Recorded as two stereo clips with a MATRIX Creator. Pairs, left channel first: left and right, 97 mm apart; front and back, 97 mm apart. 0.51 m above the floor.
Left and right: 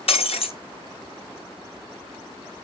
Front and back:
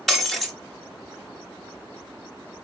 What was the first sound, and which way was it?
Breaking glass, 85° left.